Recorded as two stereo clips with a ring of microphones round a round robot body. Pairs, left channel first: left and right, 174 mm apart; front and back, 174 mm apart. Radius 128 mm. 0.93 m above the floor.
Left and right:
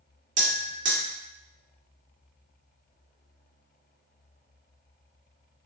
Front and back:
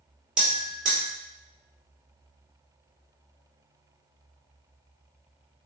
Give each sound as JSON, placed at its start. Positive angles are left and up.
{"t": 0.4, "sound": "a bell", "azimuth_deg": -95, "distance_m": 1.9}